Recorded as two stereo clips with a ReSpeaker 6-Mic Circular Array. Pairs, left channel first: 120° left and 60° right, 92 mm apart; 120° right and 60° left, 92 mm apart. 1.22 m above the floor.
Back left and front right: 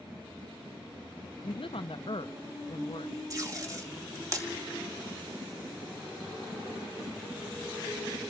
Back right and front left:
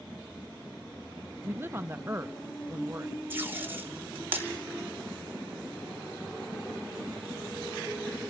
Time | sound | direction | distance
1.4 | a woman speaking | 125° left | 0.6 m
3.3 | tape being pulled | 5° right | 2.5 m